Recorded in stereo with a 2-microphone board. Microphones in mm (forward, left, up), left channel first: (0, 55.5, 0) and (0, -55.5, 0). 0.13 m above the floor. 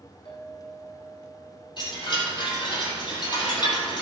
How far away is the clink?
About 4.5 m.